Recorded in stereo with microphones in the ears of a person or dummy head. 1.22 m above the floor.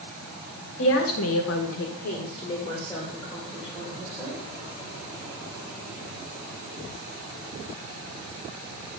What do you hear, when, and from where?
0.8 s a woman speaking: 70° left (ahead or behind), 1.6 m; by 4.4 s 5° right (ahead or behind), 3.5 m